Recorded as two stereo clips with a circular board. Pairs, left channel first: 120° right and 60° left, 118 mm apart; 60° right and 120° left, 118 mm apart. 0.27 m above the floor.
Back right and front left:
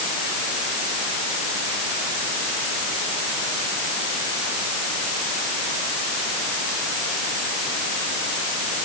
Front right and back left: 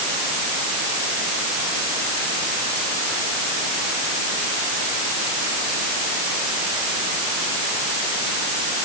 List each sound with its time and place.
Only background noise.